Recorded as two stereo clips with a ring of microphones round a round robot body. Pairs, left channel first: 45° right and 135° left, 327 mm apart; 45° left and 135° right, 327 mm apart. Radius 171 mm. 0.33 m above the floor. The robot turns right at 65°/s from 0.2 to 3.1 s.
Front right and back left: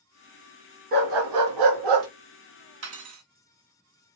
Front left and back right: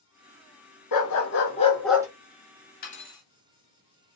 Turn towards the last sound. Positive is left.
turn(degrees=125)